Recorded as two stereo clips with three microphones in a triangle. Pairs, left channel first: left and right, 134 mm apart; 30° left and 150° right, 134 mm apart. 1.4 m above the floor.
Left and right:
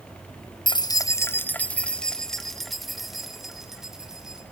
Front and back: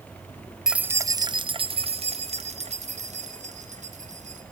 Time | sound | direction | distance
0.7 | keys jangling | 125° left | 0.6 m